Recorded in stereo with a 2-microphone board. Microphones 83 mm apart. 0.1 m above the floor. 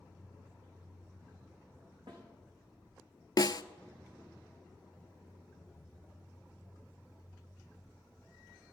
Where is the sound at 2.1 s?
65° right (ahead or behind), 5.5 m.